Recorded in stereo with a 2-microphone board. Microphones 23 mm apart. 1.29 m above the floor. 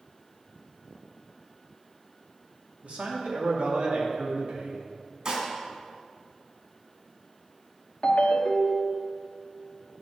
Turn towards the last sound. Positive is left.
turn(degrees=55)  # may be behind; listen again after turning